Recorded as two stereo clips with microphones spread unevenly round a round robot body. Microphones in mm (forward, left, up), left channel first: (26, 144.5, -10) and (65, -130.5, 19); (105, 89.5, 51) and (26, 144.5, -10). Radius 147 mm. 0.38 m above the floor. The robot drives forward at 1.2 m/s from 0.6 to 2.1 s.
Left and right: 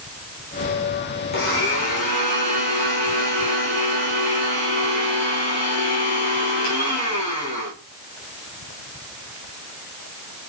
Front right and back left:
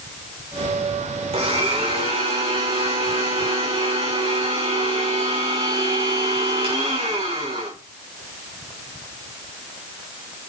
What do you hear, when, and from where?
1.3 s a blender: 160° left, 5.5 m